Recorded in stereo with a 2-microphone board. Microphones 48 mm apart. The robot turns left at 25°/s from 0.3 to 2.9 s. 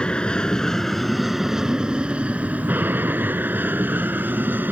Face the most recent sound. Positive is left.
turn(degrees=-45)